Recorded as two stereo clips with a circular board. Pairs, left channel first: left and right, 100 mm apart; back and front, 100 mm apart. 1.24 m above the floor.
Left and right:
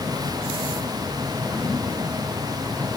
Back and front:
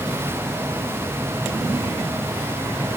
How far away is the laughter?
No laughter in this recording.